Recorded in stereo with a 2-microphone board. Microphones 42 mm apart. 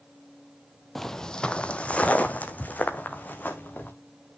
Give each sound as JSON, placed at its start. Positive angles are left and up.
{"t": 0.9, "sound": "footsteps", "side_deg": 5, "distance_m": 0.7}